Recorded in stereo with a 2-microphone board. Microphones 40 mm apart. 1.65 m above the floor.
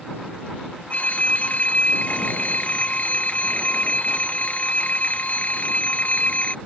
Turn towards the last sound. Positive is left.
turn(degrees=35)  # may be behind; listen again after turning